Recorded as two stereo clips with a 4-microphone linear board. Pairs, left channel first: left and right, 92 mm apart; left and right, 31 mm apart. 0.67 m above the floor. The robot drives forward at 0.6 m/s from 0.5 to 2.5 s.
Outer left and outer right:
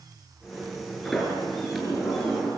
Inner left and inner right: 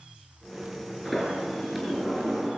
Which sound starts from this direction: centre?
A sliding door, at 1.1 s.